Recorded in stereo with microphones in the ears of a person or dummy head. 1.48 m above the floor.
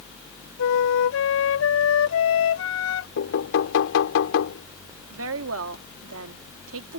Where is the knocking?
75° left (ahead or behind).